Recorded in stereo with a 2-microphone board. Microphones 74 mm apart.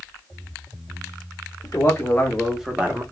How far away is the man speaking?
About 1.4 m.